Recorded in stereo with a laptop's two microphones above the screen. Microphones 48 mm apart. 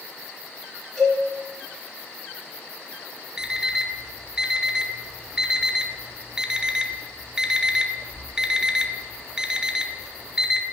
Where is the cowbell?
Centre (ahead or behind), 2 m.